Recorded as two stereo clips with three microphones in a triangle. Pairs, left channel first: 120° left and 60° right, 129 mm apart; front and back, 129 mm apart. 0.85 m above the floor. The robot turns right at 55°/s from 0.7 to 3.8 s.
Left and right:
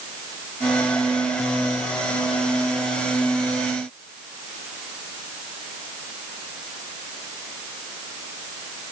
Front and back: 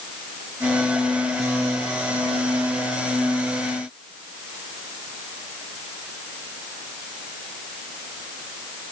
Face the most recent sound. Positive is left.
No sound to turn to.